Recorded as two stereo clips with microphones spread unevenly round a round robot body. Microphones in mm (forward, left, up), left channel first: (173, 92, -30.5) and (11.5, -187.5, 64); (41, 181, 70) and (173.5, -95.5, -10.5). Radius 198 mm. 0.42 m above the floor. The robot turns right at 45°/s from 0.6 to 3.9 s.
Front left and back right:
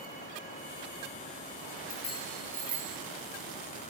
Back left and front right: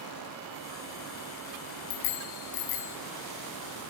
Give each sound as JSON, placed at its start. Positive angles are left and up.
{"t": 1.9, "sound": "a bicycle bell", "azimuth_deg": 125, "distance_m": 2.5}